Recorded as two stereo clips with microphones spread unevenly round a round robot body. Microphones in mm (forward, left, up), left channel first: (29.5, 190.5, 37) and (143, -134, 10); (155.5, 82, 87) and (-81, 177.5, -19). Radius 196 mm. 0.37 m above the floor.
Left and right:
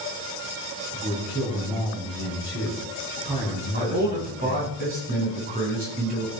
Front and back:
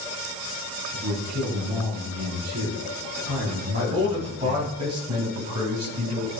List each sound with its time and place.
0.9 s a man speaking: 145° right, 5 m
3.7 s a man speaking: 140° right, 4 m